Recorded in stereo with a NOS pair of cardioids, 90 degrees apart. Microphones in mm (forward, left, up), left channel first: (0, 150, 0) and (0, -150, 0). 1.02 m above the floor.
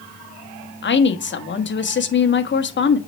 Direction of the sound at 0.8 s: 40° left.